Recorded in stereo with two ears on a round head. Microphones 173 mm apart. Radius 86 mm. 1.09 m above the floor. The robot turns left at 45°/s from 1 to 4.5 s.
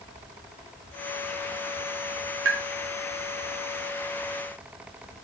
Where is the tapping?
65° right (ahead or behind), 0.5 m; by 2.6 s 70° right (ahead or behind), 0.5 m.